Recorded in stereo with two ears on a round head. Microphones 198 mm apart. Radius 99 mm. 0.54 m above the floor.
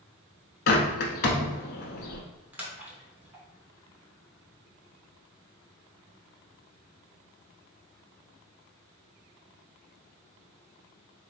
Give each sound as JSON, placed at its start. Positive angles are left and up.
{"t": 0.7, "sound": "a bird", "side_deg": 50, "distance_m": 0.9}
{"t": 2.5, "sound": "a splash", "side_deg": -5, "distance_m": 0.9}